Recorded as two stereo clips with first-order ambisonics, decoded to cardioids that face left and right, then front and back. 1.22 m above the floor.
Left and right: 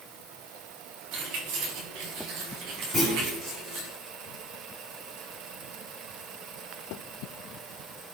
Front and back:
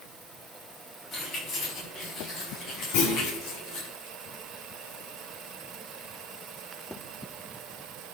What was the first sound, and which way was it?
Keys jangling, 70° right.